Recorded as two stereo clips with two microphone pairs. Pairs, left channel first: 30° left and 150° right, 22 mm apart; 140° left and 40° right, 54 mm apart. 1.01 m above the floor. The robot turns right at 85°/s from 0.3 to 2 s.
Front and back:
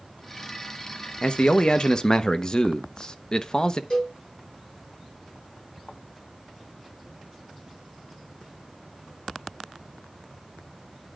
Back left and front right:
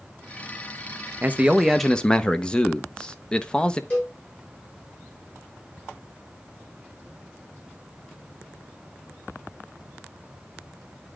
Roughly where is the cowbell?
Left.